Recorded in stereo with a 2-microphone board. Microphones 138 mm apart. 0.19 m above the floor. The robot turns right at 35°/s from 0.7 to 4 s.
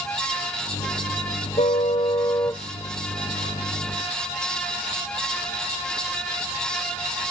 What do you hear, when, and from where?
1.6 s a car horn: 125° left; by 2.6 s 165° left